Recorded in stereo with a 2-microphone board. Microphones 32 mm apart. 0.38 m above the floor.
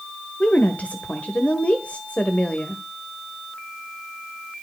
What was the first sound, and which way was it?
A woman speaking, 45° left (ahead or behind).